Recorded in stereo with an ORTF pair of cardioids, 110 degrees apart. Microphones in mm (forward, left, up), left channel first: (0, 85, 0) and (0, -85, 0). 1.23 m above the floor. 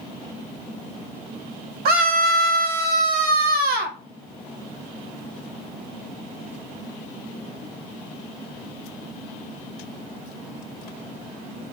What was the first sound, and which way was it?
A scream, 70° right.